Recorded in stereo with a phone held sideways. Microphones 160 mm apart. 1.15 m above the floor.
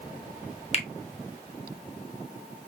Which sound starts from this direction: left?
A finger snap, at 0.7 s.